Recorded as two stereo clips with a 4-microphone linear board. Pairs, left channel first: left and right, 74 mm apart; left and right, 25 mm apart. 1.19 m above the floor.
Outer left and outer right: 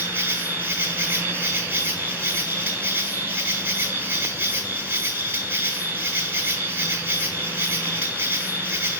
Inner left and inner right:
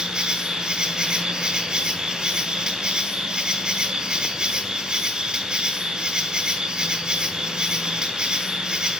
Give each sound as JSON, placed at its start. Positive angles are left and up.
{"t": 0.0, "sound": "an insect", "side_deg": -25, "distance_m": 1.0}